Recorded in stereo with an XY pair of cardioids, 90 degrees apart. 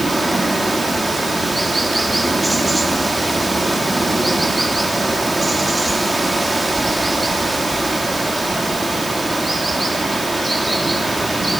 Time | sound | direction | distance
0.0 | running water | 10° right | 3 m